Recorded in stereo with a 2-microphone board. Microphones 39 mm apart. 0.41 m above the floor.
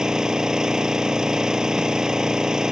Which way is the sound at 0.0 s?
20° right (ahead or behind).